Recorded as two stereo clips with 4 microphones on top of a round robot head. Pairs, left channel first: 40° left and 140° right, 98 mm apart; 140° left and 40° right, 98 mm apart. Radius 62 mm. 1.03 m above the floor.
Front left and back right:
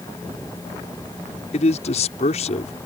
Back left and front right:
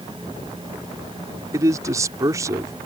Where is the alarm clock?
I don't hear an alarm clock.